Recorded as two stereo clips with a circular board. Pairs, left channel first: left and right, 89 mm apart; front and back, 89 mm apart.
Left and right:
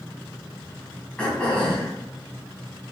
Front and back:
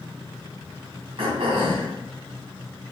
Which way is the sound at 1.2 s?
170° left.